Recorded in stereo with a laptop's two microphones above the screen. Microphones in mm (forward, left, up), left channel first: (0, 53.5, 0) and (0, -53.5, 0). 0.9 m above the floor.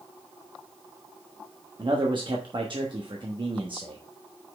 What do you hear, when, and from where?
1.8 s a man speaking: 55° right (ahead or behind), 1.2 m